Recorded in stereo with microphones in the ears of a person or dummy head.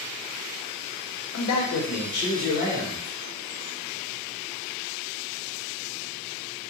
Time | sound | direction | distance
1.3 | a man speaking | 75° left (ahead or behind) | 0.7 m